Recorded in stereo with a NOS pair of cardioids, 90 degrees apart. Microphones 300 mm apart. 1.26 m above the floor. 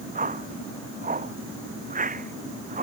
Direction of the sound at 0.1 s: 25° right.